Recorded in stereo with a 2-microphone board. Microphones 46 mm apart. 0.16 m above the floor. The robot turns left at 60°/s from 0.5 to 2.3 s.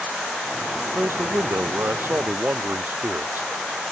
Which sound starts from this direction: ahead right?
A man speaking, at 0.9 s.